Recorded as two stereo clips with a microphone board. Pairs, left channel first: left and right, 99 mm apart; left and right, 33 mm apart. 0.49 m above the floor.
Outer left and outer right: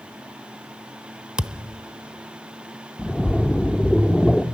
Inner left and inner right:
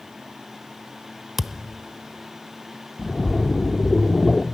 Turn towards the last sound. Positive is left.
turn(degrees=10)  # may be behind; listen again after turning